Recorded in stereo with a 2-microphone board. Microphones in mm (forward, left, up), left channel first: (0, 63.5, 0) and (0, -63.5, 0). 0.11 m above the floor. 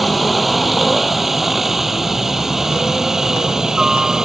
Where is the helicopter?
Centre (ahead or behind); by 4.3 s 5° right (ahead or behind).